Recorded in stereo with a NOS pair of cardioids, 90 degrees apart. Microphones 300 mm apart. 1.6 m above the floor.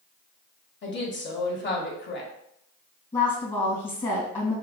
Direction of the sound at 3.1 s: 15° left.